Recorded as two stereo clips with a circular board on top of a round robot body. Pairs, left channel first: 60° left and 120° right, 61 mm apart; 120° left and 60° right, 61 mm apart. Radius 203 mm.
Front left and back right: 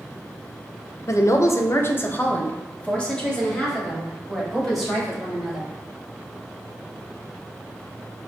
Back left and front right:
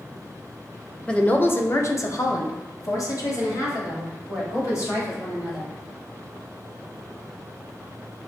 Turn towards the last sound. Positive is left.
turn(degrees=150)